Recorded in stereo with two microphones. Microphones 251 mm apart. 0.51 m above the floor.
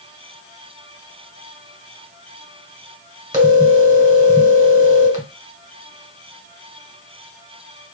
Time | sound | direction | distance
3.3 | a phone ringing | 15° right (ahead or behind) | 1.7 m